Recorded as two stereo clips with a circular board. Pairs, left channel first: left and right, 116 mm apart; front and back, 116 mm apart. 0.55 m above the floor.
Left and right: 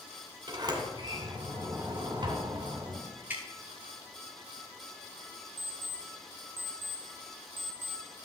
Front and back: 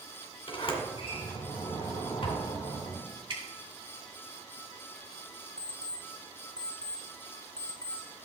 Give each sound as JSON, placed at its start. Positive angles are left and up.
{"t": 0.5, "sound": "a sliding door", "azimuth_deg": -35, "distance_m": 2.0}
{"t": 3.3, "sound": "dripping", "azimuth_deg": -160, "distance_m": 1.8}
{"t": 5.6, "sound": "an alarm clock", "azimuth_deg": -20, "distance_m": 1.1}